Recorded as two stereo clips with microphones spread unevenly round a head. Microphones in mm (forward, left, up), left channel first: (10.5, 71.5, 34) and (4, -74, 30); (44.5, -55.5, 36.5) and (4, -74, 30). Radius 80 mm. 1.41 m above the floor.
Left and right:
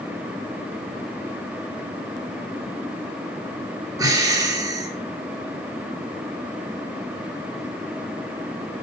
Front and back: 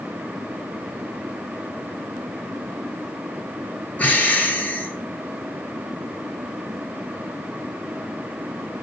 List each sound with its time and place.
4.0 s breathing: 25° right, 3.5 m